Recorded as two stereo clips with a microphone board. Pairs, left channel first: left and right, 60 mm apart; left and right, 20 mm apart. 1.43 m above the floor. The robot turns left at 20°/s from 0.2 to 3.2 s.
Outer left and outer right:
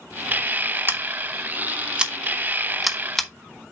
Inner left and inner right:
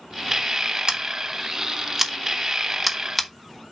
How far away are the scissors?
About 1.1 m.